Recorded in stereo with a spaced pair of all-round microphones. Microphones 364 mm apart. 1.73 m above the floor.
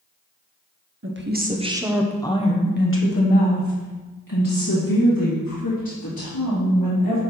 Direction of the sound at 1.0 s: 35° right (ahead or behind).